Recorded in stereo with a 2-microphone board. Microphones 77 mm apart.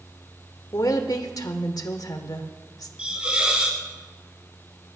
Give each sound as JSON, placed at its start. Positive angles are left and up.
{"t": 0.7, "sound": "a woman speaking", "side_deg": 60, "distance_m": 1.2}
{"t": 3.0, "sound": "a hiss", "side_deg": -15, "distance_m": 2.5}